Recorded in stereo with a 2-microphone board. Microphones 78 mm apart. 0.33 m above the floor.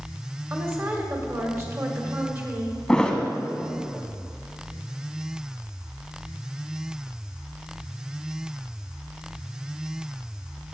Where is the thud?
10° left (ahead or behind), 1.0 m.